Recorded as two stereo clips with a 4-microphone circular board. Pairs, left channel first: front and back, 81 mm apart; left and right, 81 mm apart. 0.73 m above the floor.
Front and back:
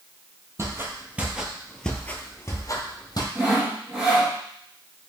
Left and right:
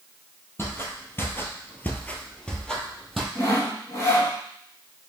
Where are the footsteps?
140° left, 1.0 m; by 3.2 s 5° left, 1.1 m.